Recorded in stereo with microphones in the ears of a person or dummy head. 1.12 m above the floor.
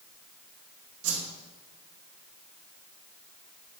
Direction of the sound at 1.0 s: 70° right (ahead or behind).